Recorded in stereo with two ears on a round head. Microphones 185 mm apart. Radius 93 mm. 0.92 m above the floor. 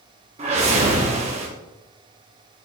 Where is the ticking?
No ticking in this recording.